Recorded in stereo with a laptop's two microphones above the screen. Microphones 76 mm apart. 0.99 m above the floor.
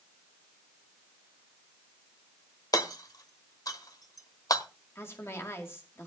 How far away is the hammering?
About 1.0 m.